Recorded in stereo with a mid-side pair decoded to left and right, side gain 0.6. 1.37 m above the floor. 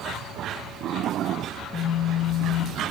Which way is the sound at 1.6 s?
35° left.